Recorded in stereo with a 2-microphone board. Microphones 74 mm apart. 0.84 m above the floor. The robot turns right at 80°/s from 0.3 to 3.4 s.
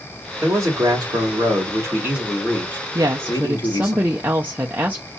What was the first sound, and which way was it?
A man speaking, 155° right.